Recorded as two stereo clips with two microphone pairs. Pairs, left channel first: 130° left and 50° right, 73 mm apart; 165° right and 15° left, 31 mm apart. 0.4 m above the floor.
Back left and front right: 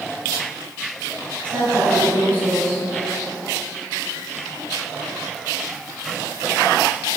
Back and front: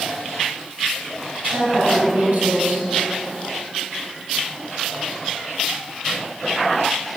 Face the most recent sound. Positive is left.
turn(degrees=15)